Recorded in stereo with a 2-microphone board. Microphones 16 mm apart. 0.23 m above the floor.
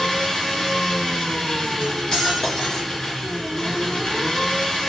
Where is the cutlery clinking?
50° left (ahead or behind), 1.7 m.